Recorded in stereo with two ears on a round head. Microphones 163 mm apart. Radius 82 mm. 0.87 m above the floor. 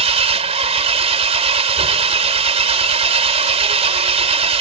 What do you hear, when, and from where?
0.0 s an engine running: 35° right (ahead or behind)